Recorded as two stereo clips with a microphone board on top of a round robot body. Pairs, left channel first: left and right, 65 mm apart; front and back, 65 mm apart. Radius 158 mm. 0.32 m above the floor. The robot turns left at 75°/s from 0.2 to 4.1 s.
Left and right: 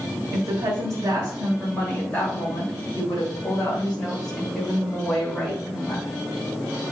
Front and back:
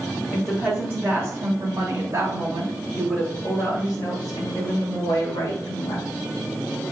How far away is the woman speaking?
About 2 m.